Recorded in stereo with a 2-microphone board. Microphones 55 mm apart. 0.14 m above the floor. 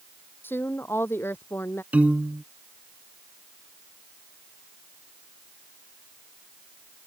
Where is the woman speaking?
40° left (ahead or behind); by 1.8 s 45° left (ahead or behind).